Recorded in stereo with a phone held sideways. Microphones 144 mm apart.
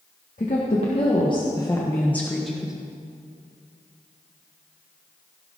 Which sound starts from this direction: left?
A woman speaking, at 0.4 s.